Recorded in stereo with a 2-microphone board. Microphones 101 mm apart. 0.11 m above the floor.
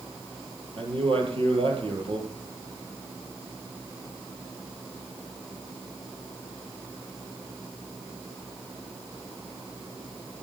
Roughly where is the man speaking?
Right.